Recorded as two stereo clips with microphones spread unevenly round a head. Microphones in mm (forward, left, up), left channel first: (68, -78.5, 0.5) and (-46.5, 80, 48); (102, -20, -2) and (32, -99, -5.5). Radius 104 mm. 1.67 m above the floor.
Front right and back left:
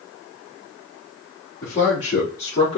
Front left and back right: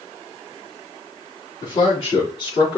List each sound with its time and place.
1.6 s a man speaking: 20° left, 4 m